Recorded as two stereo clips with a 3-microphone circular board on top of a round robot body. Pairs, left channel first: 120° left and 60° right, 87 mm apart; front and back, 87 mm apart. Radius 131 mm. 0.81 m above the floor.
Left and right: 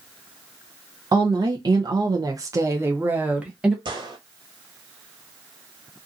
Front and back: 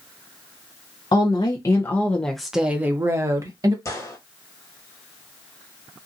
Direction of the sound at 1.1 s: 30° right.